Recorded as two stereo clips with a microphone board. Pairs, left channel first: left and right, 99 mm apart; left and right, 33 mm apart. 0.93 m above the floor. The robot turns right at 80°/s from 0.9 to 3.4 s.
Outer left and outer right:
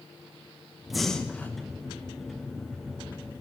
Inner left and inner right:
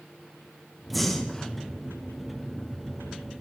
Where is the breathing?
Centre (ahead or behind), 0.9 m; by 1.5 s 15° left (ahead or behind), 0.9 m.